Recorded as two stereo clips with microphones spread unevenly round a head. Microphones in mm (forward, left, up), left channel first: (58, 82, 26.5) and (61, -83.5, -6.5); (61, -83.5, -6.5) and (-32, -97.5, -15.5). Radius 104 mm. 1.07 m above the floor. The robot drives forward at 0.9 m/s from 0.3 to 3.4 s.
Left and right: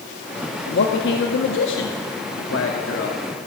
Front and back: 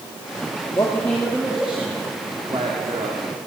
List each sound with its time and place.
0.7 s a man speaking: 80° left, 2 m; by 3.2 s 135° left, 3 m